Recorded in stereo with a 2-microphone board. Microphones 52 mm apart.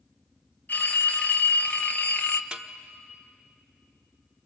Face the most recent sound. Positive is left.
turn(degrees=-20)  # may be behind; listen again after turning